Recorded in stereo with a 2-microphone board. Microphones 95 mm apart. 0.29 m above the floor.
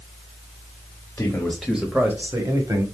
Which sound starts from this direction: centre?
A man speaking, at 1.2 s.